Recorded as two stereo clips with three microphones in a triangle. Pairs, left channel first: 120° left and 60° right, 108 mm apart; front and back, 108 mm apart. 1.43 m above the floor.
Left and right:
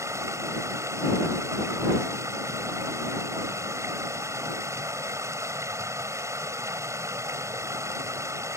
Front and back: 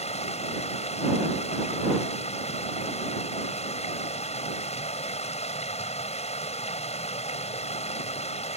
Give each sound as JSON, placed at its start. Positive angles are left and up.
{"t": 0.0, "sound": "running water", "azimuth_deg": 5}